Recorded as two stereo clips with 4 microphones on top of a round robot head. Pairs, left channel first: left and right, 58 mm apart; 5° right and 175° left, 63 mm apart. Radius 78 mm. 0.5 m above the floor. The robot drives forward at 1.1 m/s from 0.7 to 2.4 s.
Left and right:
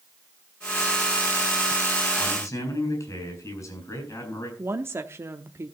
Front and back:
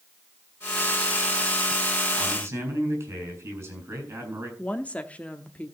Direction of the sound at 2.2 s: 120° left.